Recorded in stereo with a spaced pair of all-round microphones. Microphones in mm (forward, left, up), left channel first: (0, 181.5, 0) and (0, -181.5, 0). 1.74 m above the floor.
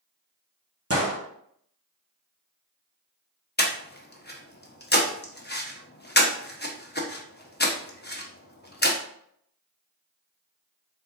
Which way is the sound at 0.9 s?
40° right (ahead or behind).